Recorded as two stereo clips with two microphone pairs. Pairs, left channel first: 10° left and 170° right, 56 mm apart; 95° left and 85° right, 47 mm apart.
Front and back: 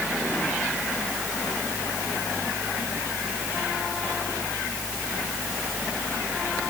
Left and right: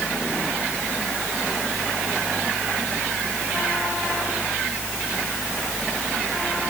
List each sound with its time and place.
Only background noise.